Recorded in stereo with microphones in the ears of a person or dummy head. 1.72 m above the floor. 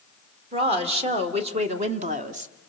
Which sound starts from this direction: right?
A woman speaking, at 0.5 s.